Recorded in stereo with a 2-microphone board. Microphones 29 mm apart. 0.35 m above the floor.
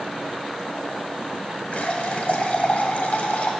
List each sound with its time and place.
1.7 s a running tap: 50° left (ahead or behind), 1.3 m